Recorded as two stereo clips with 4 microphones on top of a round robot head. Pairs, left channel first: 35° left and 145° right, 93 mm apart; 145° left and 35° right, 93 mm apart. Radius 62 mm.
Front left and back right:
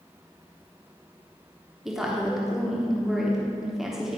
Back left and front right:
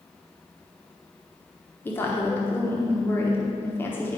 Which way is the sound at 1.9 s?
130° left.